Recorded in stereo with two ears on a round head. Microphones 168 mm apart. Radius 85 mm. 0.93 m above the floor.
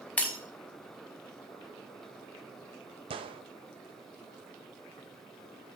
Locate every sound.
0.2 s breaking glass: 5° left (ahead or behind), 1.3 m
3.1 s a gunshot: 30° right (ahead or behind), 0.5 m